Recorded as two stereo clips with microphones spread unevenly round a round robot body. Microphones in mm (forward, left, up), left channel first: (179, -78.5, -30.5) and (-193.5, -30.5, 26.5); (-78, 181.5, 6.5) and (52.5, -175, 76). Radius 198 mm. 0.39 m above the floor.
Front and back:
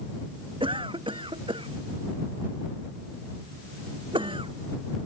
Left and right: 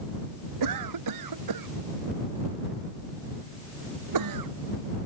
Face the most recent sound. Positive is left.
turn(degrees=-110)